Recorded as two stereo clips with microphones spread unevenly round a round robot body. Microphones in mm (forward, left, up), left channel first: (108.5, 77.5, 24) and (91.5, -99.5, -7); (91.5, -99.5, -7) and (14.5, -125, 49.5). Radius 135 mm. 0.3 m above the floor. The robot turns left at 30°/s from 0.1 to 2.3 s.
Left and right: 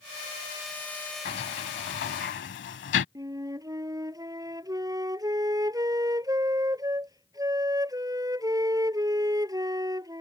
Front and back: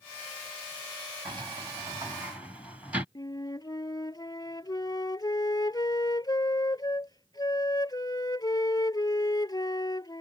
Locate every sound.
1.2 s a sliding door: 130° left; by 3.0 s 95° left
3.1 s a flute: 25° right